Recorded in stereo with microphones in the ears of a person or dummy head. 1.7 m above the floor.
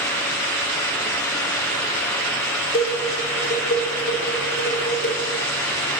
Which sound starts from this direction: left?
Dishes clattering, at 2.7 s.